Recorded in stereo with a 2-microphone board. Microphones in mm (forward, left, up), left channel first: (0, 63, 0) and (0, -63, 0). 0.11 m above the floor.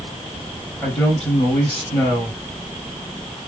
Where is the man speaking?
10° left (ahead or behind), 2.5 m.